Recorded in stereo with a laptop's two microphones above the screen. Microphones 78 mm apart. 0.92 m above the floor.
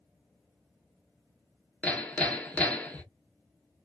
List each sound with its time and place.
1.8 s hammering: 20° left (ahead or behind), 0.7 m